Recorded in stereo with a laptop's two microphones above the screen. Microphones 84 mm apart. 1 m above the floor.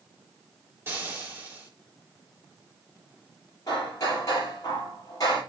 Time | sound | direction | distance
0.9 | frying | 25° right (ahead or behind) | 3.5 m
3.7 | hammering | 45° left (ahead or behind) | 7.5 m